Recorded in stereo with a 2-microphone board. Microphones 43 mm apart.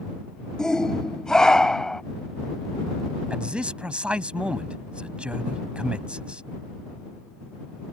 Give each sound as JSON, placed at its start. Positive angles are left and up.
{"t": 0.6, "sound": "a shout", "side_deg": 15}
{"t": 3.3, "sound": "a man speaking", "side_deg": -30}